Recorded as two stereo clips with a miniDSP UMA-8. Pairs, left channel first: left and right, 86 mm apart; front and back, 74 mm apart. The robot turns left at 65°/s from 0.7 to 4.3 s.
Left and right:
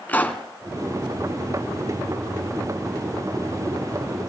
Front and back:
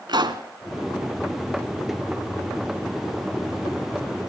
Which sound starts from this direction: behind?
A pop, at 0.1 s.